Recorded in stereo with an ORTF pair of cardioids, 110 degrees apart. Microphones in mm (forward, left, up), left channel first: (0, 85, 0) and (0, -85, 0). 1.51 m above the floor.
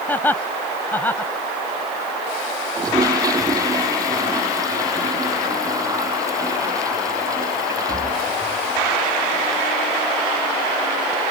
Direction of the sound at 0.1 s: 10° left.